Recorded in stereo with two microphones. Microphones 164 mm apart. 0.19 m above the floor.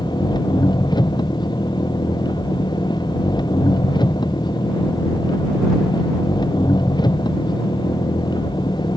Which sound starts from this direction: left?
An engine running, at 0.0 s.